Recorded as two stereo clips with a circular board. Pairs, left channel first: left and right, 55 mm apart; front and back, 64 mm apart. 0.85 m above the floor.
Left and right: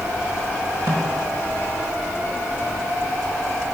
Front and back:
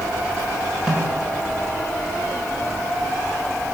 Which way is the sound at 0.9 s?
100° right.